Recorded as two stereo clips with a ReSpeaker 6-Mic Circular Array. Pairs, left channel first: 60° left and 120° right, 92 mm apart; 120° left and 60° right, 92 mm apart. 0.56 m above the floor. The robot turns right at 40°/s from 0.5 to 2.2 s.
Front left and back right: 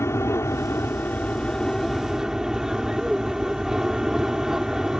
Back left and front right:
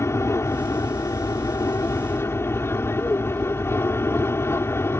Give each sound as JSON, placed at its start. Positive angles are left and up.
{"t": 0.0, "sound": "an aircraft", "azimuth_deg": 90}